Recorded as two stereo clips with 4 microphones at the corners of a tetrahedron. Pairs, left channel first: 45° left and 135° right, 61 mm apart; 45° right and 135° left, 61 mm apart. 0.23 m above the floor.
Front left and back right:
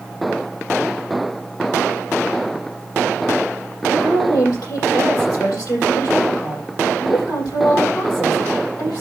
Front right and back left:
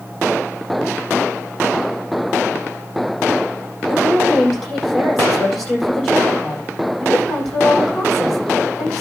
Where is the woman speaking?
40° left, 7.5 m.